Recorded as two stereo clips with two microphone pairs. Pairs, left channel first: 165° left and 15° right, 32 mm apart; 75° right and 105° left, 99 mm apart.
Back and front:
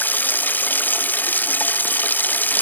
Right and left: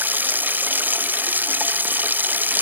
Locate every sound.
0.0 s running water: 175° left